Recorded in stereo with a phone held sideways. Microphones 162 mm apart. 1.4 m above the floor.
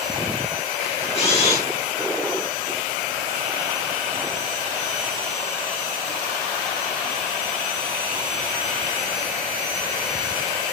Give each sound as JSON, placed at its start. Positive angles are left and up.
{"t": 0.8, "sound": "a camera shutter", "side_deg": 40, "distance_m": 7.0}